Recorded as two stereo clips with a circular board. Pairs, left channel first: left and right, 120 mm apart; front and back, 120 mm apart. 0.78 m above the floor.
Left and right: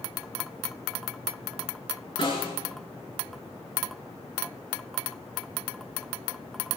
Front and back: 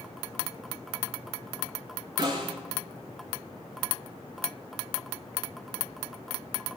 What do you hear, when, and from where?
2.2 s a snare drum: 130° left, 7.5 m